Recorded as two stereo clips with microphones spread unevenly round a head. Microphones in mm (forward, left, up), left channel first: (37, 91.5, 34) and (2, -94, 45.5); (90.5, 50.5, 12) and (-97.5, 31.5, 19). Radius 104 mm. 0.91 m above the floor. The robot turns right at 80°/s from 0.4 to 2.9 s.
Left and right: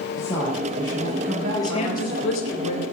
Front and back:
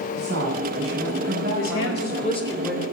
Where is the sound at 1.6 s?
5° left, 4 m; by 2.8 s 105° left, 4 m.